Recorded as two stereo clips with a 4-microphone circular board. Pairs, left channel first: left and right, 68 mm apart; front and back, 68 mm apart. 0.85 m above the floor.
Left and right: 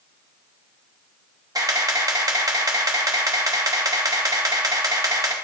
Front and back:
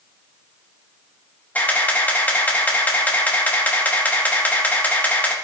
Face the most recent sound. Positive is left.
turn(degrees=-65)